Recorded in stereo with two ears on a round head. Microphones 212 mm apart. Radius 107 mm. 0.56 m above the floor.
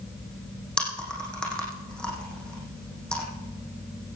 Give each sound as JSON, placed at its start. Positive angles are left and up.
{"t": 0.8, "sound": "chewing", "side_deg": 5, "distance_m": 5.5}